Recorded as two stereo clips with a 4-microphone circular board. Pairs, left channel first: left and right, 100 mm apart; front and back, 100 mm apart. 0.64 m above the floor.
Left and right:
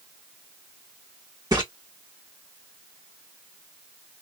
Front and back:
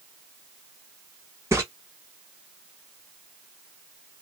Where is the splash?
125° right, 1.5 m.